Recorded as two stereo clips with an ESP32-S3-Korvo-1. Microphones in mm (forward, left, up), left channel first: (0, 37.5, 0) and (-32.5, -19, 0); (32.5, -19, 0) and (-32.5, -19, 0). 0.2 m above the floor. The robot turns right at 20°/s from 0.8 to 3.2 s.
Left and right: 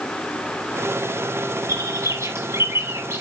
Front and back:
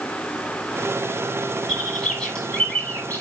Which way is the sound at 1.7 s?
95° right.